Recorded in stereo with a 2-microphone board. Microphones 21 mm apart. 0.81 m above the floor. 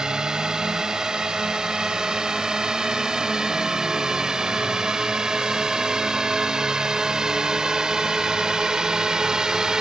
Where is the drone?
35° right (ahead or behind).